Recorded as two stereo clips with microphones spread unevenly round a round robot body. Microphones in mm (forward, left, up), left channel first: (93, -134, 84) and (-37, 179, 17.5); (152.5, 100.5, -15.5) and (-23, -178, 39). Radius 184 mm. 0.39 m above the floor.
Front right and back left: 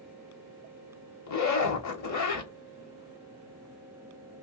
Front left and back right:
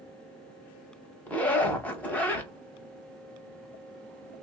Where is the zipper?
25° right, 1.1 m.